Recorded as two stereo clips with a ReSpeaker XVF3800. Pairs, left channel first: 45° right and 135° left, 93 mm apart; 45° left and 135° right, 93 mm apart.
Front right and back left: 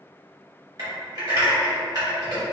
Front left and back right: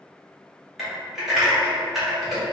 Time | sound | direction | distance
0.8 | typing on a keyboard | 140° left | 1.3 m